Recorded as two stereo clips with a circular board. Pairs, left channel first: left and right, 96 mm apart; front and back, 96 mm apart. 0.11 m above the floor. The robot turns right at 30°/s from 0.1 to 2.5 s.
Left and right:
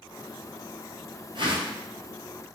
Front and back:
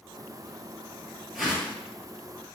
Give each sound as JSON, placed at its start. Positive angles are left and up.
{"t": 1.4, "sound": "a whoosh", "azimuth_deg": -90, "distance_m": 1.3}